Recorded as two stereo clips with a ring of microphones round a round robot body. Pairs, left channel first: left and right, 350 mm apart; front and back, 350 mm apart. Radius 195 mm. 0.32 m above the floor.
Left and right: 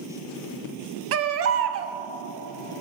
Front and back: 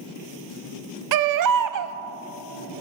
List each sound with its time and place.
1.1 s a baby crying: 145° right, 0.9 m